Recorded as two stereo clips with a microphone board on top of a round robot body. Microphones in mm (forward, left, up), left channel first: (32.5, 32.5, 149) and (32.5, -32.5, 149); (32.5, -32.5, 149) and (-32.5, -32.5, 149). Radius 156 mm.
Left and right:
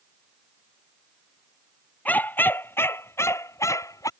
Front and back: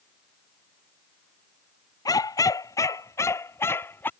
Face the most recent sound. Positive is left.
turn(degrees=60)